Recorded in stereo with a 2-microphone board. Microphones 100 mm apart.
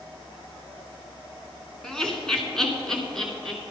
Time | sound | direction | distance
1.8 | laughter | 5° left (ahead or behind) | 1.9 m